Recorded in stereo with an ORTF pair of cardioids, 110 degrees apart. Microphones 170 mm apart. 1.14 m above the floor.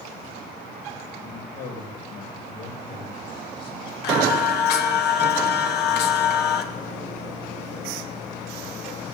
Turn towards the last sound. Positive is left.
turn(degrees=70)